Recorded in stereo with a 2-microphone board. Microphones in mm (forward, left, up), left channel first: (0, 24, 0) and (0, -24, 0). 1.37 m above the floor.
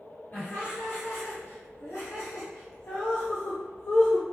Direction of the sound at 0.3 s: 35° left (ahead or behind).